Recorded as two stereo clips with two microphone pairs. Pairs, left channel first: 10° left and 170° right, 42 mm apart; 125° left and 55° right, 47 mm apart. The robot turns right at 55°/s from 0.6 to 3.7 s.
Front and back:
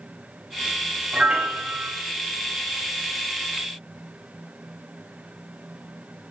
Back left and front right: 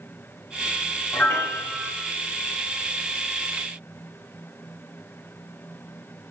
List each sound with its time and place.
1.1 s a piano: 130° left, 1.0 m; by 1.9 s 175° left, 1.0 m